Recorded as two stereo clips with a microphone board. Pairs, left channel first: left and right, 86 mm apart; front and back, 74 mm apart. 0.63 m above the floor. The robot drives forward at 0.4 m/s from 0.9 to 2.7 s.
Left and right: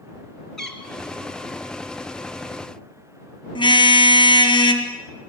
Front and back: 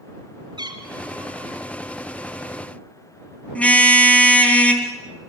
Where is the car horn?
70° left, 2.5 m.